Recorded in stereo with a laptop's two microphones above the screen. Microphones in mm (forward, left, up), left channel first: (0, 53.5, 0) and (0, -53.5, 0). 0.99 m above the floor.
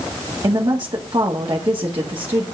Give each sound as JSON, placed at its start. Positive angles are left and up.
{"t": 0.4, "sound": "a woman speaking", "side_deg": -40, "distance_m": 1.8}